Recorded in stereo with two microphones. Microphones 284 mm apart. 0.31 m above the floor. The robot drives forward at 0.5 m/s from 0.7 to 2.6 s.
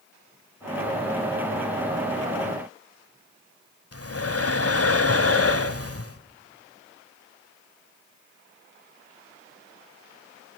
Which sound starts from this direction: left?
Breathing, at 3.9 s.